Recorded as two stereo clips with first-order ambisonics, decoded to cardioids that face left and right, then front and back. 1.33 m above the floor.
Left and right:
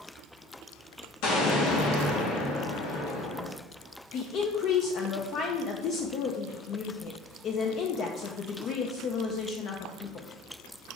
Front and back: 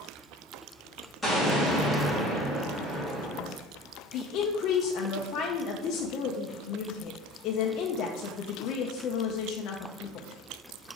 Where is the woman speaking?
40° left, 0.6 m.